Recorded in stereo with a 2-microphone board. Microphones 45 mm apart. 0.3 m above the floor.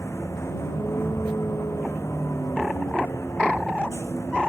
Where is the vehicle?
85° left.